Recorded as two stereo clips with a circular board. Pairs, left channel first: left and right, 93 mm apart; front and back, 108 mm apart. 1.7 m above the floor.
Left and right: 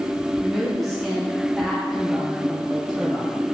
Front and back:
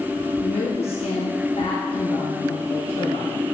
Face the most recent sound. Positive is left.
turn(degrees=5)